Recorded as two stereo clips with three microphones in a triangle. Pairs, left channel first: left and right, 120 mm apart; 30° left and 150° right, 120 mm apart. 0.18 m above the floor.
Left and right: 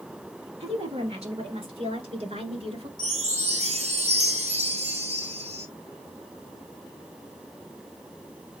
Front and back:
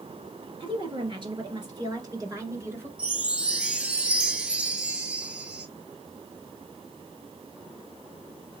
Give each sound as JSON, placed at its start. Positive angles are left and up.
{"t": 0.6, "sound": "a woman speaking", "azimuth_deg": -115, "distance_m": 2.5}
{"t": 3.0, "sound": "a chime", "azimuth_deg": -70, "distance_m": 0.6}